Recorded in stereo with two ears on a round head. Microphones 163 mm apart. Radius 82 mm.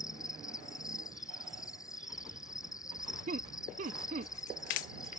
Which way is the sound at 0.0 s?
20° left (ahead or behind).